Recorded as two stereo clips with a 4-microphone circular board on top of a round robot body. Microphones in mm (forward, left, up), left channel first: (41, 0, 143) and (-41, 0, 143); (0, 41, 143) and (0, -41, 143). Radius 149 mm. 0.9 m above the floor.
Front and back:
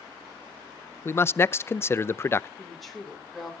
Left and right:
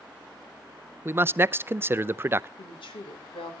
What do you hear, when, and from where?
1.1 s a man speaking: 45° right, 0.6 m
2.6 s a woman speaking: 90° left, 3.5 m